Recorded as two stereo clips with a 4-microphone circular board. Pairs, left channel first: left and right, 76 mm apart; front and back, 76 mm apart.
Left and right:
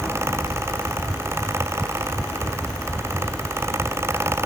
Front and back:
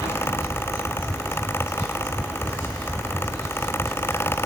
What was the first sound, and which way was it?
Only background noise.